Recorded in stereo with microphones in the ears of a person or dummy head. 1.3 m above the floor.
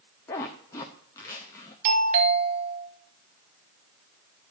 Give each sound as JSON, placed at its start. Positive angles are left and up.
{"t": 0.3, "sound": "a zipper", "side_deg": 10, "distance_m": 0.6}
{"t": 1.9, "sound": "a doorbell", "side_deg": -40, "distance_m": 1.7}